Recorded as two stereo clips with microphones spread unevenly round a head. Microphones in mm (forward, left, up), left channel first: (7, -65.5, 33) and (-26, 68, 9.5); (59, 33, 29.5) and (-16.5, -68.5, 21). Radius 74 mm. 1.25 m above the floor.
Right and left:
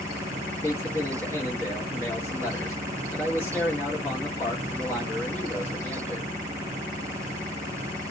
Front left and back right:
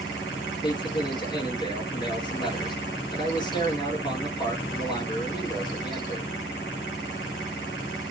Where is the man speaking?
Straight ahead, 1.4 m.